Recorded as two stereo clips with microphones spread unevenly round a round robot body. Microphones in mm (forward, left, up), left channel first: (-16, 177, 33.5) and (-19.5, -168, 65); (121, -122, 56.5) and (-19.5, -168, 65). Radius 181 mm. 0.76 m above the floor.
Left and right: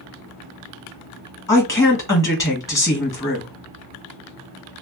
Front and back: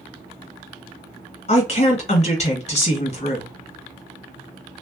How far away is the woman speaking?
About 1.5 m.